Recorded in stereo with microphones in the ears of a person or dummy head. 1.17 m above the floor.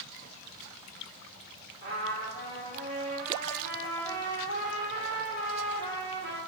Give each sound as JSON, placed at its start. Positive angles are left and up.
{"t": 1.8, "sound": "a trumpet", "side_deg": -55, "distance_m": 2.0}